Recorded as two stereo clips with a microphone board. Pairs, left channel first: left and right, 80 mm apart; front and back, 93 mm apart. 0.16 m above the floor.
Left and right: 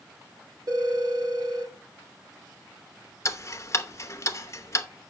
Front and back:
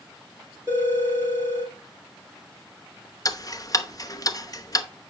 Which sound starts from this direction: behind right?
A phone ringing, at 0.7 s.